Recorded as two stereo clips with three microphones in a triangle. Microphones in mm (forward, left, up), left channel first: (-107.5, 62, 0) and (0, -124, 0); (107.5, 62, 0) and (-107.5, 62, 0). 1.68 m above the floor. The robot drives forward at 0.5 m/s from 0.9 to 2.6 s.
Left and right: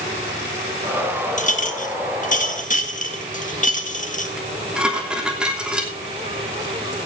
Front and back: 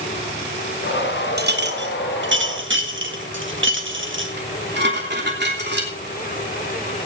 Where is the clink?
165° left, 1.2 m; by 4.3 s 170° left, 1.7 m.